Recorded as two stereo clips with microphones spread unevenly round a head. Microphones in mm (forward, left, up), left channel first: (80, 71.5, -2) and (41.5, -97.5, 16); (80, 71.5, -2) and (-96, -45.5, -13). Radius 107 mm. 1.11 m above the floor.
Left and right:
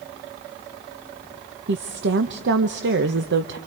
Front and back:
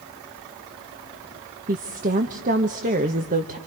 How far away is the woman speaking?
About 1.1 m.